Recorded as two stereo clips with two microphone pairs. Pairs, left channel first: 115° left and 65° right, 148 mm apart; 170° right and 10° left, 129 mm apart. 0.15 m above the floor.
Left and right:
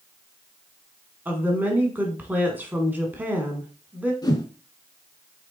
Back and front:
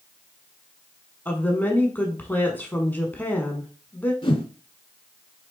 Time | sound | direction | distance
1.2 | a woman speaking | 120° right | 1.1 m
4.2 | a whoosh | 165° left | 0.7 m